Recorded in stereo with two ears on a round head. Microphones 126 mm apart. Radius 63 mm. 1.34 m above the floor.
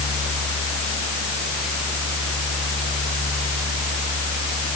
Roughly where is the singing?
I don't hear singing.